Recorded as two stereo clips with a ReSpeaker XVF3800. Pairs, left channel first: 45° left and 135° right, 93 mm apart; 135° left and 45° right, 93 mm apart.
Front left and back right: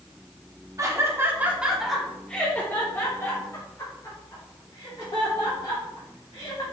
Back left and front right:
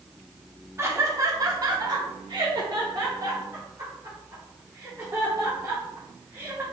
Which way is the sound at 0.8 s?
95° right.